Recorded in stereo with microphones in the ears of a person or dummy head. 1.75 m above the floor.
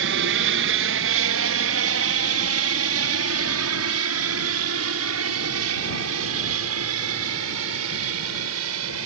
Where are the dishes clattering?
I don't hear dishes clattering.